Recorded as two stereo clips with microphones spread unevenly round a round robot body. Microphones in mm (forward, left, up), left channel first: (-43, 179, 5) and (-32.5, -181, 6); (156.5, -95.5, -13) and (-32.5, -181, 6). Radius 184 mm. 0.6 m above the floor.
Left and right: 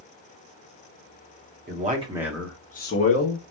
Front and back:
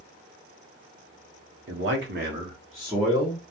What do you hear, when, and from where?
1.7 s a man speaking: 150° right, 1.0 m; by 3.4 s 100° left, 0.9 m